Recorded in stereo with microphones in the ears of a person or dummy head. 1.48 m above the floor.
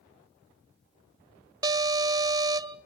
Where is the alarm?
20° right (ahead or behind), 0.6 m.